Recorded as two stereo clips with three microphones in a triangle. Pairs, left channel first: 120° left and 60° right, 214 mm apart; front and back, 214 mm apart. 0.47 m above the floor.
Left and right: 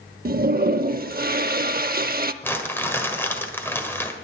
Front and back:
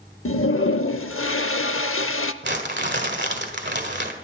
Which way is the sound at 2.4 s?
165° right.